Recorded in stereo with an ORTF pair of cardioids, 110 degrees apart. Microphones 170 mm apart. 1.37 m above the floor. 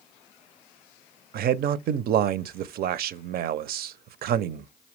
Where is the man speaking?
60° right, 0.6 m.